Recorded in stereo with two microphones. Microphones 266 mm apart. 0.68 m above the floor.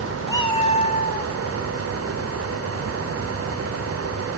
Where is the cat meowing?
15° left (ahead or behind), 1.4 m; by 1.3 s 35° left (ahead or behind), 2.5 m.